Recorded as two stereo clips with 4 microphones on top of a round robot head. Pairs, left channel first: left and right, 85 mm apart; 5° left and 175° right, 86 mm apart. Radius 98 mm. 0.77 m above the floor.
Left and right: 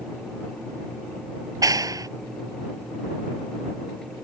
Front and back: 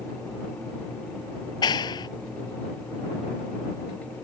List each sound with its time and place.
1.6 s a clap: 45° right